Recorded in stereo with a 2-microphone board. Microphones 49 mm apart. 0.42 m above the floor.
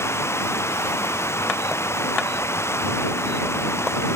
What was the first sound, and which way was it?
Running water, 60° left (ahead or behind).